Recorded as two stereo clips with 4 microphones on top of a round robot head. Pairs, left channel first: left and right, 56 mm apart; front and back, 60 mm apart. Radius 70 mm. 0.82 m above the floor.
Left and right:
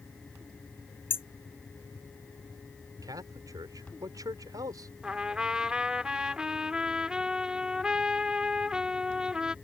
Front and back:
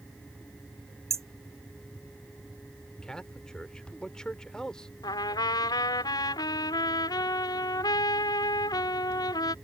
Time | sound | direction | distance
1.1 | hammering | 140° left | ?
3.0 | a man speaking | 80° right | ?
5.0 | a trumpet | 10° right | ?